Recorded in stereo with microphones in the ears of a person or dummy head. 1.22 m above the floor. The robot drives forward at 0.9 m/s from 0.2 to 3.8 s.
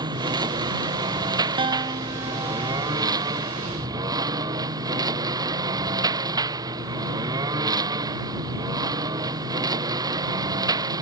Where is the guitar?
25° right (ahead or behind); by 2.9 s 15° right (ahead or behind).